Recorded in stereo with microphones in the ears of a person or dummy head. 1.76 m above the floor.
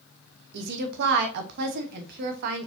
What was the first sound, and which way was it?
A woman speaking, 55° right (ahead or behind).